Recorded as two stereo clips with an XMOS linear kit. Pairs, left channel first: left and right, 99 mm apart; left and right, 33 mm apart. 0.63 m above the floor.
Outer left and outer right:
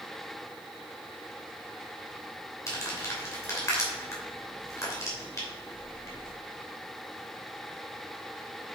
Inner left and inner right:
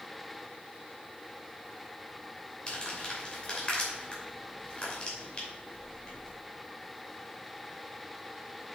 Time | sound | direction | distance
2.7 | crumpling | 30° left (ahead or behind) | 2.5 m